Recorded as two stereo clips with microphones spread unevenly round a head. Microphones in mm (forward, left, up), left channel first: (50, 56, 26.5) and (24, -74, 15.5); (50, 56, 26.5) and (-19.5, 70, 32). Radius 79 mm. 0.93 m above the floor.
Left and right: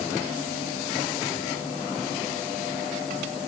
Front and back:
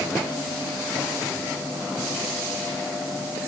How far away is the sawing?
No sawing in this recording.